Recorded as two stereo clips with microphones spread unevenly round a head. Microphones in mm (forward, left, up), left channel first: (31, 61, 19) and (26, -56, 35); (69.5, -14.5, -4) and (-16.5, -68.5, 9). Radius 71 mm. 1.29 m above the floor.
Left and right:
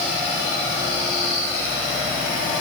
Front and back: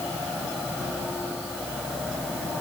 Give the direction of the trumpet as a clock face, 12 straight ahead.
I don't hear a trumpet.